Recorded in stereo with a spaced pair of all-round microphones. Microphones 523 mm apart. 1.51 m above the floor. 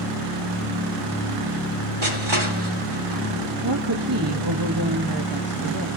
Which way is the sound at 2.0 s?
65° right (ahead or behind).